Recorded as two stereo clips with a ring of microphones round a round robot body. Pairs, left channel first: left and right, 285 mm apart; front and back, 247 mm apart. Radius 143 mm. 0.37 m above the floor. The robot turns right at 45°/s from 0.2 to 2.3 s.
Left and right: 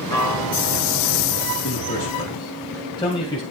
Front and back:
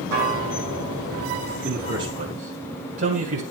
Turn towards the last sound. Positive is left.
turn(degrees=160)